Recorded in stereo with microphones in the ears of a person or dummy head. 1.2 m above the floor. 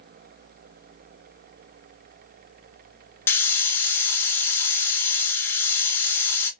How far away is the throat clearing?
I don't hear throat clearing.